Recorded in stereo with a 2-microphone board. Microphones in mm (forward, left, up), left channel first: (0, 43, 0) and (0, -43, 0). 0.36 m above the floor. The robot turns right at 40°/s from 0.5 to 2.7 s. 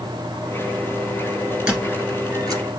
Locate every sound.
1.7 s a squeak: 15° right (ahead or behind), 2 m; by 2.6 s 55° right (ahead or behind), 2 m